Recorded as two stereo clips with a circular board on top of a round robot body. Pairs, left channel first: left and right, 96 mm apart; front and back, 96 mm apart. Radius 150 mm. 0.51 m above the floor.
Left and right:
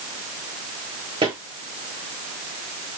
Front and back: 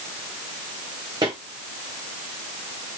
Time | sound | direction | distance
1.2 | footsteps | 130° right | 2 m